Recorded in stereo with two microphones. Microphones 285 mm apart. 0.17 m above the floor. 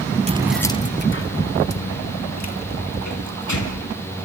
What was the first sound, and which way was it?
Keys jangling, 25° right (ahead or behind).